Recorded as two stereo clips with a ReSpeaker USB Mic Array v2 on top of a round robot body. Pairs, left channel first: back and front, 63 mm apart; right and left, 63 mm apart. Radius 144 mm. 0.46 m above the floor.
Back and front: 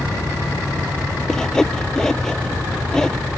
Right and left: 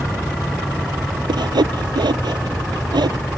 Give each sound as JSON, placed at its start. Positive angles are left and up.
{"t": 1.3, "sound": "sawing", "azimuth_deg": 100}